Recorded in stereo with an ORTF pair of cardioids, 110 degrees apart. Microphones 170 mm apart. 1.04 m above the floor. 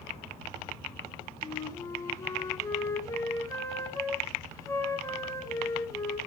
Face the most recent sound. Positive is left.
turn(degrees=20)